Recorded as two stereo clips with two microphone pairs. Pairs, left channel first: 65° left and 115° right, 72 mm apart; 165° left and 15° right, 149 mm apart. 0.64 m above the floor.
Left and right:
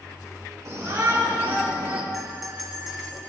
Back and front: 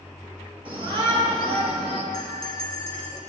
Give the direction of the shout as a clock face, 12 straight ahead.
2 o'clock.